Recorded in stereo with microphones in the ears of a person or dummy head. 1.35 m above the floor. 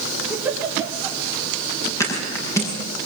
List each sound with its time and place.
0.3 s a giggle: 10° right (ahead or behind), 4 m
2.0 s a thud: 15° left (ahead or behind), 7.5 m